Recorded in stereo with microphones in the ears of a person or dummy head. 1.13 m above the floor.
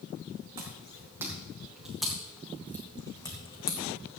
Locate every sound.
0.6 s footsteps: 30° right (ahead or behind), 2.5 m; by 3.8 s 30° left (ahead or behind), 2.5 m